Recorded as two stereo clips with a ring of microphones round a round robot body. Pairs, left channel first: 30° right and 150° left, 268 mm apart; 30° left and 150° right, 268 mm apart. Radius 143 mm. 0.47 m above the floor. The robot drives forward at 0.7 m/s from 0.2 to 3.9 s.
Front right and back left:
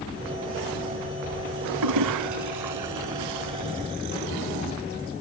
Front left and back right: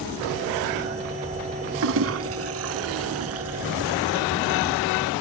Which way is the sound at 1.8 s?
165° left.